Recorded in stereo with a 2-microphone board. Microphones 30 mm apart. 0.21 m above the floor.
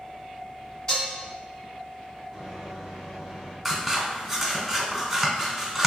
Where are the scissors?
5° left (ahead or behind), 1.3 m.